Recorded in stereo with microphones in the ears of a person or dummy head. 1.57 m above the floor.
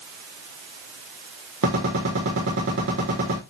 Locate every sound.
1.6 s a gunshot: 75° right (ahead or behind), 4.5 m